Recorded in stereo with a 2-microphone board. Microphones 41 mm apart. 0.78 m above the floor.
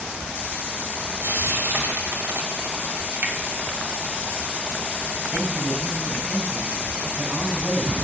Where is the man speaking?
60° right (ahead or behind), 4.5 m.